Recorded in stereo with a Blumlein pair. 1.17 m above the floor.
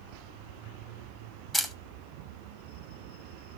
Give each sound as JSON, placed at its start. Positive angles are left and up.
{"t": 1.5, "sound": "a camera shutter", "azimuth_deg": 5, "distance_m": 1.0}